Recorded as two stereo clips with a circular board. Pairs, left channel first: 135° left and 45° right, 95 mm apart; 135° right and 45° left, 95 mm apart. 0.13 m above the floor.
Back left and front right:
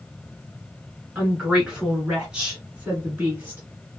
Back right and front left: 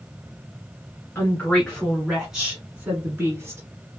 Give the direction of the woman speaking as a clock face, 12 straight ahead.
4 o'clock.